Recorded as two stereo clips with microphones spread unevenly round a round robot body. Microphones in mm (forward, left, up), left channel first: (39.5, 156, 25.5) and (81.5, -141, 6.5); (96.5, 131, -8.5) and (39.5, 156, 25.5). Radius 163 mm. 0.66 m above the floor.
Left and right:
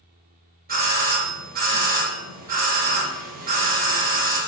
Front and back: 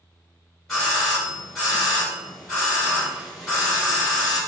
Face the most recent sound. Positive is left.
turn(degrees=-55)